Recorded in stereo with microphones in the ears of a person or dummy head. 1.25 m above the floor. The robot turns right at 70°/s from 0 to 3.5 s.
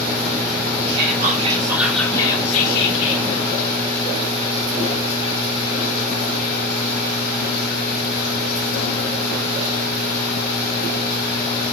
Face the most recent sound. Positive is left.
turn(degrees=115)